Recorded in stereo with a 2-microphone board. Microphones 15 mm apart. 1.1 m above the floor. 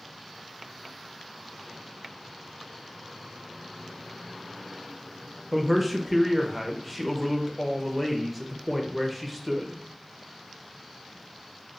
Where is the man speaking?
5° right (ahead or behind), 0.7 m.